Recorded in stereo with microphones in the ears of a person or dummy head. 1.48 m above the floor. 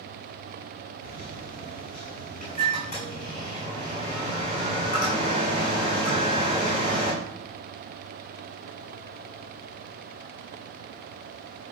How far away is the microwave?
About 7 m.